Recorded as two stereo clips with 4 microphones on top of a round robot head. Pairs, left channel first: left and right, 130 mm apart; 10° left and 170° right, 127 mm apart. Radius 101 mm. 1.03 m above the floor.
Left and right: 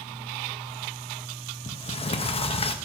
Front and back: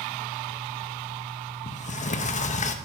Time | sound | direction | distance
1.7 | a sliding door | 40° left | 0.8 m